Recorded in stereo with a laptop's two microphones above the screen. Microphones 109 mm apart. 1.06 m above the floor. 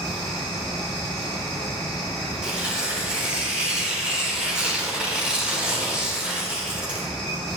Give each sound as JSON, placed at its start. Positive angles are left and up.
{"t": 0.0, "sound": "a fan", "side_deg": 5, "distance_m": 3.5}
{"t": 2.4, "sound": "tearing paper", "side_deg": -10, "distance_m": 1.1}